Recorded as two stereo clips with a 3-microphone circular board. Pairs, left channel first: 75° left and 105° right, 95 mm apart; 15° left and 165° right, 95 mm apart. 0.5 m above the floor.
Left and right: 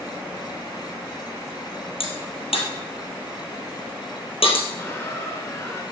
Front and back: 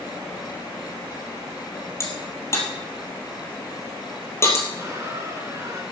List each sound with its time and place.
2.0 s a crack: 75° left, 3 m
4.8 s a squeak: 135° left, 2.5 m